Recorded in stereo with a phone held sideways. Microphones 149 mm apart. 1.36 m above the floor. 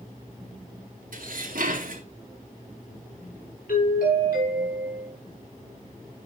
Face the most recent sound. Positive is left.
turn(degrees=80)